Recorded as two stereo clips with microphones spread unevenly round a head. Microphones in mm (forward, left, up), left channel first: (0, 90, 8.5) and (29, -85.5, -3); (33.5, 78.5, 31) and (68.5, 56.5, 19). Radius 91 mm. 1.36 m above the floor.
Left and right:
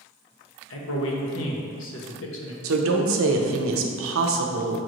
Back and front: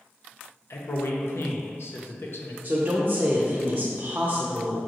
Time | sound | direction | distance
0.7 | a man speaking | 125° left | 0.8 m
2.6 | a woman speaking | 90° right | 0.5 m